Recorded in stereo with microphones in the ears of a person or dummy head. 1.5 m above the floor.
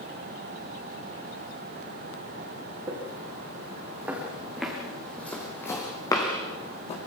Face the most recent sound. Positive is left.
turn(degrees=35)  # may be behind; listen again after turning